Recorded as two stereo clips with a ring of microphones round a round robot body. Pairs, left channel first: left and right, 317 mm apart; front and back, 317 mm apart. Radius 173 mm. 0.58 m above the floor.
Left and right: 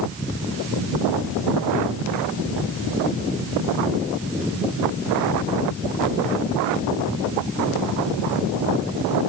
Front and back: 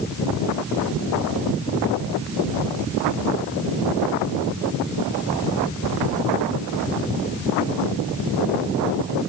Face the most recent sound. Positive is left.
No sound to turn to.